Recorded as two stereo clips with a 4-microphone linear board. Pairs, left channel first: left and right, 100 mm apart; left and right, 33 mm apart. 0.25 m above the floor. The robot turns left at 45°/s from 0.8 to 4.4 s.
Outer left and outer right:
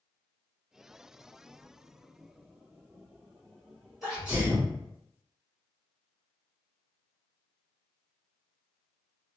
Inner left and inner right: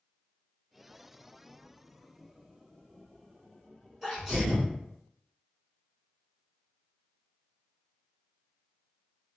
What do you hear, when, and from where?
4.0 s a sneeze: centre (ahead or behind), 1.7 m; by 4.7 s 10° right (ahead or behind), 1.7 m